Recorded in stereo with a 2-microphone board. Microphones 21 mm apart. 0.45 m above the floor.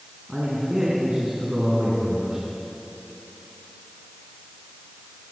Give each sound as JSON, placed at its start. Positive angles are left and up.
{"t": 0.3, "sound": "a man speaking", "side_deg": -35, "distance_m": 5.5}